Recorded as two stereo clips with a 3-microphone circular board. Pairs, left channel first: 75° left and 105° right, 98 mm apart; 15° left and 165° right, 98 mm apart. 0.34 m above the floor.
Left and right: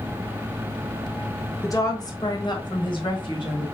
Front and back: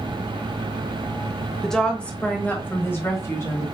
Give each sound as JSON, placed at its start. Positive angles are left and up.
{"t": 1.6, "sound": "a woman speaking", "azimuth_deg": 100, "distance_m": 1.1}